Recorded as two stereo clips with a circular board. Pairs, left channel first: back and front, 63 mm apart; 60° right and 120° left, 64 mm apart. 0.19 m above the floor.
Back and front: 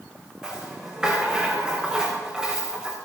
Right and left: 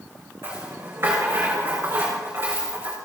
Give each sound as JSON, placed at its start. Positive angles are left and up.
{"t": 0.4, "sound": "a rattle", "azimuth_deg": 75, "distance_m": 4.5}